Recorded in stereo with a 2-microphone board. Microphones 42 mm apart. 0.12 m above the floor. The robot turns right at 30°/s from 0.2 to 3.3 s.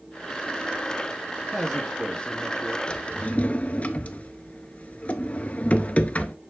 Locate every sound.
1.5 s a man speaking: 5° left, 2 m; by 2.8 s 45° left, 2 m
2.9 s a drawer: 30° left (ahead or behind), 0.5 m; by 6.3 s 35° left (ahead or behind), 0.5 m